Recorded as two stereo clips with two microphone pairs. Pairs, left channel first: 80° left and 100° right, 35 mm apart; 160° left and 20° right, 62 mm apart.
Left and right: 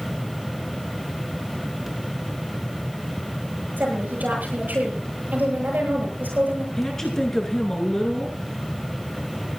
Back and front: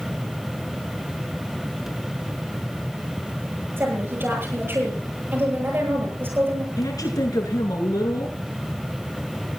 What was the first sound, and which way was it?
A woman speaking, 75° right.